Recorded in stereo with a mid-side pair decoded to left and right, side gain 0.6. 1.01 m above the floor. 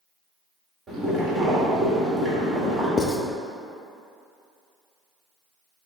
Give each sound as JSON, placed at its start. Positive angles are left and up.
{"t": 0.9, "sound": "boiling", "azimuth_deg": -30, "distance_m": 1.6}
{"t": 3.0, "sound": "writing", "azimuth_deg": 30, "distance_m": 0.5}